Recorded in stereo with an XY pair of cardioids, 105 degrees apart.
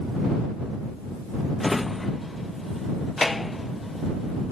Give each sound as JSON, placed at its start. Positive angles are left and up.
{"t": 1.6, "sound": "a drawer", "azimuth_deg": 15}